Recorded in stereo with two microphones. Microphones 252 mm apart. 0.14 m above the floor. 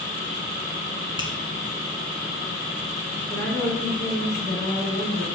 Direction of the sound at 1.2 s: 20° right (ahead or behind).